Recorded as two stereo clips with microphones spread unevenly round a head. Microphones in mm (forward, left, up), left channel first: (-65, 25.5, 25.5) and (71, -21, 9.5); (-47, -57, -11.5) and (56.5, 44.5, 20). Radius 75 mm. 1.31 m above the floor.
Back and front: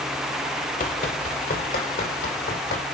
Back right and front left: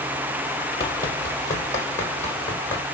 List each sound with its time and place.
0.8 s running footsteps: 155° left, 2 m; by 2.8 s 145° left, 4 m